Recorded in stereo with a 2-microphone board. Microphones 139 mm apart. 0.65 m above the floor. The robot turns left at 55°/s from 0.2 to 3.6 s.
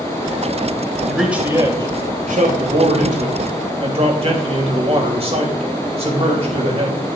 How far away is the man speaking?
About 3 m.